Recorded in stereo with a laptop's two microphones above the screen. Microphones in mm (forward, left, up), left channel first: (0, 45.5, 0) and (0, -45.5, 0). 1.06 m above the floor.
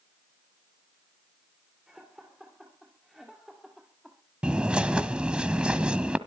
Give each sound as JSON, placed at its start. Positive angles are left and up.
{"t": 1.9, "sound": "laughter", "side_deg": -5, "distance_m": 3.0}
{"t": 4.4, "sound": "a bird", "side_deg": -10, "distance_m": 1.3}